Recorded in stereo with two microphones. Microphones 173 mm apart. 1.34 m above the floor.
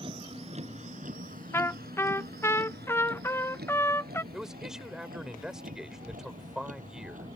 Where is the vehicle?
35° right (ahead or behind); by 7.4 s 50° right (ahead or behind).